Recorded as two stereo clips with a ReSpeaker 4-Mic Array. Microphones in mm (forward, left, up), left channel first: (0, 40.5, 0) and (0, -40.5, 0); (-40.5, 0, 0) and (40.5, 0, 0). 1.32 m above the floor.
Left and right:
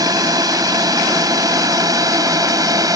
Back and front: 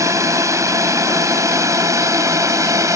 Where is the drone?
50° right.